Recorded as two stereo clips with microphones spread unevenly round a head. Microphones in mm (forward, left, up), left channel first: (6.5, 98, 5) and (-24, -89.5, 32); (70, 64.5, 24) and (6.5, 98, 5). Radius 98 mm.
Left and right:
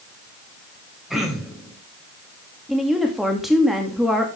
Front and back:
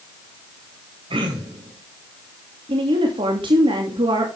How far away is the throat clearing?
About 3 m.